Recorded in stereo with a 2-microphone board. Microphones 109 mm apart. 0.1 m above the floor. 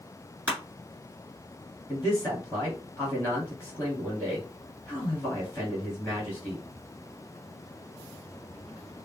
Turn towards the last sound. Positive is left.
turn(degrees=15)  # may be behind; listen again after turning